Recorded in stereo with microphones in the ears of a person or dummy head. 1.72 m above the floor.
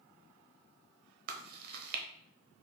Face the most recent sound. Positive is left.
turn(degrees=-55)  # may be behind; listen again after turning